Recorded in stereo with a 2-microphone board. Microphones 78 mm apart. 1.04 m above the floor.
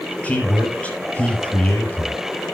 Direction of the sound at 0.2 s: 20° left (ahead or behind).